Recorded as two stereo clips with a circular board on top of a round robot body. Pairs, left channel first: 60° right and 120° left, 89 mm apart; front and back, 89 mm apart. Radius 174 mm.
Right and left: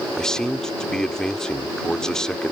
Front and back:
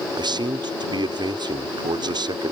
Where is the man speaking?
145° right.